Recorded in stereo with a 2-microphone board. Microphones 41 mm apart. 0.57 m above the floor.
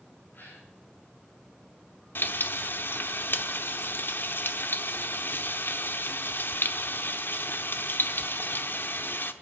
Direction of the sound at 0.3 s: 50° left (ahead or behind).